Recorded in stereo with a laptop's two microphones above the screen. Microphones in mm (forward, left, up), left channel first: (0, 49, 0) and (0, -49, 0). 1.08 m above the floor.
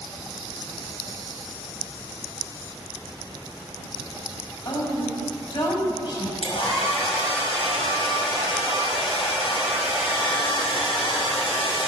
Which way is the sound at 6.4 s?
70° left (ahead or behind).